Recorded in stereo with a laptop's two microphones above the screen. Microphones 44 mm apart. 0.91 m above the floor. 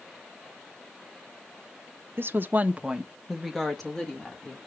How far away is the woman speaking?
About 0.5 m.